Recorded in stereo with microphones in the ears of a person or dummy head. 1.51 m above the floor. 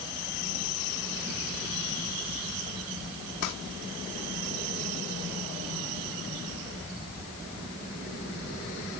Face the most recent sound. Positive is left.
turn(degrees=80)